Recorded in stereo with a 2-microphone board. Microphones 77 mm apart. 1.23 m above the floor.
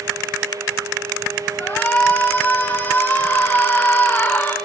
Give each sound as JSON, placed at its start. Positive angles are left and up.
{"t": 1.6, "sound": "a shout", "side_deg": 25, "distance_m": 5.0}